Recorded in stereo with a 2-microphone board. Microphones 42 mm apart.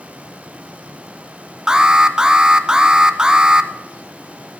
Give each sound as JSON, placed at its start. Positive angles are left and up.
{"t": 1.7, "sound": "an alarm", "side_deg": -20, "distance_m": 0.7}